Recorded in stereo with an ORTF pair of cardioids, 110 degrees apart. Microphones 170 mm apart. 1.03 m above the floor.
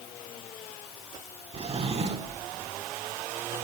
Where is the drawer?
35° right, 1.4 m.